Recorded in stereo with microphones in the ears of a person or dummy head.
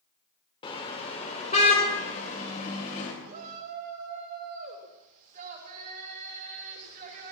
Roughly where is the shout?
Right.